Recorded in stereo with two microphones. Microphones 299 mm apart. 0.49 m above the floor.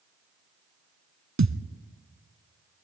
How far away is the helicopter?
No helicopter in this recording.